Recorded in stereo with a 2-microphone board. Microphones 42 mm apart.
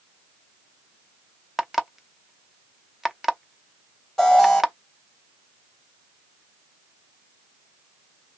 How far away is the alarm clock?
About 0.7 m.